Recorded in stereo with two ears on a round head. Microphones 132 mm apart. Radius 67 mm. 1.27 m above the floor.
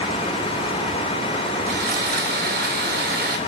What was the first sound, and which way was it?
Sawing, 75° right (ahead or behind).